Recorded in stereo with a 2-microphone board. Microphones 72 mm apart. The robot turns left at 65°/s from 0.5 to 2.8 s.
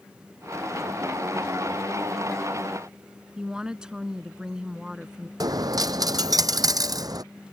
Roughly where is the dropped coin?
Right.